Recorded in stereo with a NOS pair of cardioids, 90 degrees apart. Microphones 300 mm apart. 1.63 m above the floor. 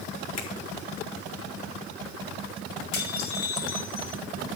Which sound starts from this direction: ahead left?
A finger snap, at 0.4 s.